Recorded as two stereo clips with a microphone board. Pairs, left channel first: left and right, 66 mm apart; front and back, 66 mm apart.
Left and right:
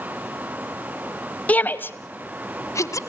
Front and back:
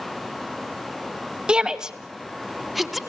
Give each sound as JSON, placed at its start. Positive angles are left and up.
{"t": 1.5, "sound": "a shout", "azimuth_deg": 125, "distance_m": 1.0}